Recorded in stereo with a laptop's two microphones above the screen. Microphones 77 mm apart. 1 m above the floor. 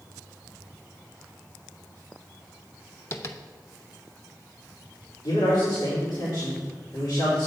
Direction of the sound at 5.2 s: 75° left (ahead or behind).